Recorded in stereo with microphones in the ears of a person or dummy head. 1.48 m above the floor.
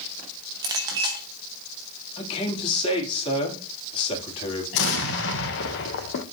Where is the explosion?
70° left (ahead or behind), 1.1 m.